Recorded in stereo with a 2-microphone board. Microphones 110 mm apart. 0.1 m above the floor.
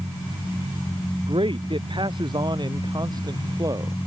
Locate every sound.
1.2 s a man speaking: 50° right (ahead or behind); by 4.0 s 35° right (ahead or behind)